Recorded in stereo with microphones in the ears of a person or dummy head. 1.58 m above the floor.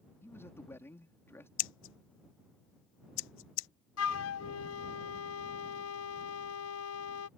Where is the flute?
80° left.